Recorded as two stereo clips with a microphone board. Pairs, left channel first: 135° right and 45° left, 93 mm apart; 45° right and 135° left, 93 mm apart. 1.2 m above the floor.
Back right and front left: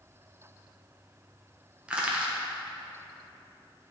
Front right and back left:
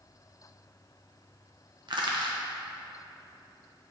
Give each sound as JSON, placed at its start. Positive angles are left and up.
{"t": 1.9, "sound": "crushing", "azimuth_deg": 120, "distance_m": 0.9}